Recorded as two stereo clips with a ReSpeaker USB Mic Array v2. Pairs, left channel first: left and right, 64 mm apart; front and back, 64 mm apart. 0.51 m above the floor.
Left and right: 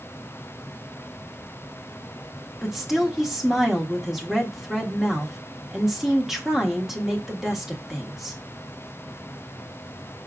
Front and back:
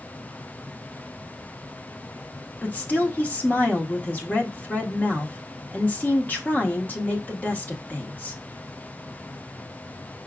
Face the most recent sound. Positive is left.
turn(degrees=-10)